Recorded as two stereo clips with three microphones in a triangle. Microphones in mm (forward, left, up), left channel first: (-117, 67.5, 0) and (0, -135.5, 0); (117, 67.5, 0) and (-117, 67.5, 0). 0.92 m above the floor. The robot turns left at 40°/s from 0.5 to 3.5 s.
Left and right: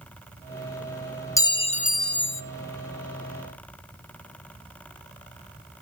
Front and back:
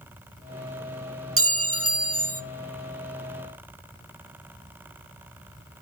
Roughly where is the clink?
Behind.